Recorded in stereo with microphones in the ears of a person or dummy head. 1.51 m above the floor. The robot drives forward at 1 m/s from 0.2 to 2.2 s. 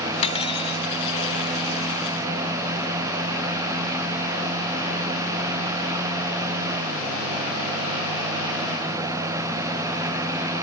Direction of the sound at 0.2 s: 35° left (ahead or behind).